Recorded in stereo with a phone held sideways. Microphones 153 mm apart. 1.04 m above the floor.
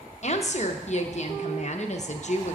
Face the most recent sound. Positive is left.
turn(degrees=50)  # may be behind; listen again after turning